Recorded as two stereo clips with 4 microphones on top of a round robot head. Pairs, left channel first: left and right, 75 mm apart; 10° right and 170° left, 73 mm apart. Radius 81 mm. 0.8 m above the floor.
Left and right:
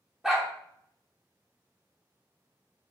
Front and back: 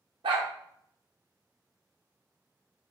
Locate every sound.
0.2 s a dog barking: 175° right, 0.7 m